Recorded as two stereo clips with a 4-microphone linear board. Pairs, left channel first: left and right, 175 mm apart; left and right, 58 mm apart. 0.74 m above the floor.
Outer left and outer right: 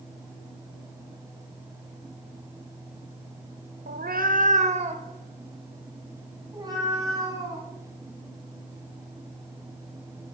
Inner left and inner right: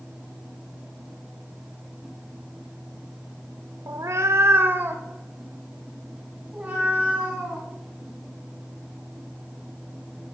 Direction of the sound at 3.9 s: 60° right (ahead or behind).